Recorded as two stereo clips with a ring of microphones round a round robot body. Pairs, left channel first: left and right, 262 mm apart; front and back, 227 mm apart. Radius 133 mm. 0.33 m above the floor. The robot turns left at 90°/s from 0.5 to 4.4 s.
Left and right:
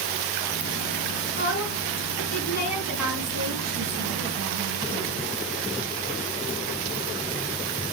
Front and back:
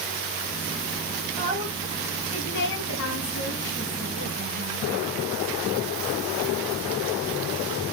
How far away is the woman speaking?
About 3 m.